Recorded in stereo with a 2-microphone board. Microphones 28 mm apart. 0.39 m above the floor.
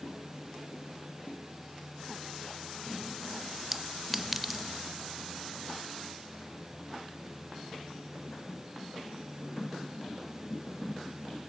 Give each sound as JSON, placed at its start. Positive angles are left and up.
{"t": 3.7, "sound": "a clink", "side_deg": -5, "distance_m": 0.8}